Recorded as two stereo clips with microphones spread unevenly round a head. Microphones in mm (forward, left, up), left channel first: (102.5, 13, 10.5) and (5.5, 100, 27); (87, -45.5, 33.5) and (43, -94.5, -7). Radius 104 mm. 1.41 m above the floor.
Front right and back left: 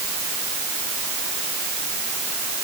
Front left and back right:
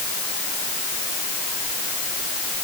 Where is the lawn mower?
No lawn mower in this recording.